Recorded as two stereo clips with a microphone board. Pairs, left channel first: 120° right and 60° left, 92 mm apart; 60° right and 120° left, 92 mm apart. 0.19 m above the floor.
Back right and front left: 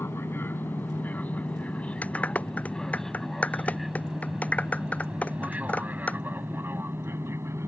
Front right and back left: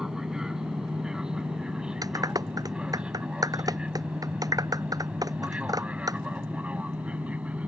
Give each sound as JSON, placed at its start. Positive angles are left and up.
{"t": 0.0, "sound": "an aircraft", "azimuth_deg": -160}
{"t": 2.0, "sound": "a clap", "azimuth_deg": 165}